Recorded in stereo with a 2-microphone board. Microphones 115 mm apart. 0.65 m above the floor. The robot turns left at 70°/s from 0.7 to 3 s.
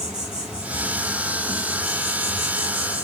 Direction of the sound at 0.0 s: 175° right.